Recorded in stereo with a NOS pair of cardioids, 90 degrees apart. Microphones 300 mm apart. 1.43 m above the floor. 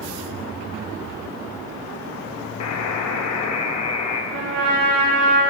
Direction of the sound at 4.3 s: 55° right.